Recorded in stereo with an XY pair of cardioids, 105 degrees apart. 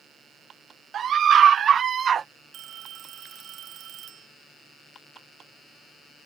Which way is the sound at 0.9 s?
60° right.